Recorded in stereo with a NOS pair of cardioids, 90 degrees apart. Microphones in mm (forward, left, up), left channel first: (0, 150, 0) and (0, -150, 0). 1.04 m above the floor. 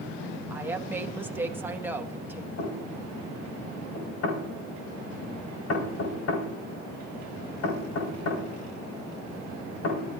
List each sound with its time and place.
0.5 s a woman speaking: 5° right, 1.5 m
2.6 s knocking: 55° left, 4.5 m